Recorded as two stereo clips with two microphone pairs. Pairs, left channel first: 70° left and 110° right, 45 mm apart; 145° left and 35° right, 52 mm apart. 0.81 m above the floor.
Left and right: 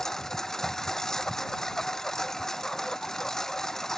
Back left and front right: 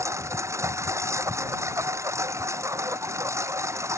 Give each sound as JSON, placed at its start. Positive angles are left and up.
{"t": 0.0, "sound": "a lawn mower", "azimuth_deg": -10}